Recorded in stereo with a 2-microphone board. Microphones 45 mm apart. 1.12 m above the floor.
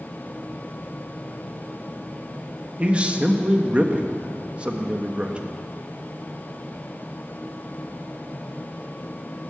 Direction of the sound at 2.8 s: 30° right (ahead or behind).